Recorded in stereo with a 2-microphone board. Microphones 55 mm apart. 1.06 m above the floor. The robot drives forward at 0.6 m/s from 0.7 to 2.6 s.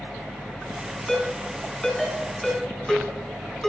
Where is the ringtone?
10° left (ahead or behind), 4.5 m; by 3.7 s 5° left (ahead or behind), 5 m.